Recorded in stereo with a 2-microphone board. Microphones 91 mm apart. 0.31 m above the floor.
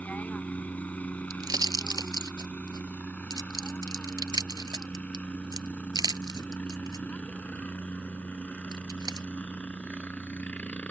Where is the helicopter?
15° left (ahead or behind).